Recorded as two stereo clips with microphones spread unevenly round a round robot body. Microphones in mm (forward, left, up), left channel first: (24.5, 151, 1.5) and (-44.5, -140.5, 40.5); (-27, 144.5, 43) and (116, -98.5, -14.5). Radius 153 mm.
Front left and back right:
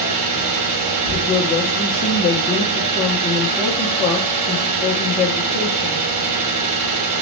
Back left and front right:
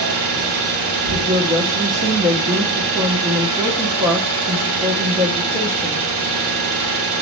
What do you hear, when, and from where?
0.0 s an engine running: 85° right, 1.5 m
1.1 s a woman speaking: 10° left, 0.7 m